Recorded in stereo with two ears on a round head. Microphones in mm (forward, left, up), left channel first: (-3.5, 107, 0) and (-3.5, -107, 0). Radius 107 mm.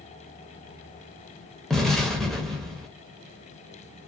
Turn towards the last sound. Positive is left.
turn(degrees=0)  # may be behind; listen again after turning